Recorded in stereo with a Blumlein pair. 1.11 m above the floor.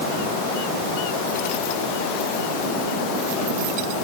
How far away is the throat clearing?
No throat clearing in this recording.